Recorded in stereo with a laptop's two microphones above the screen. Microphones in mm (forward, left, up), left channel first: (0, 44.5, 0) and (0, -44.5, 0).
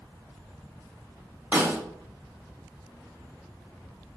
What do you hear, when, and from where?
1.5 s a snare drum: 20° right (ahead or behind), 1.2 m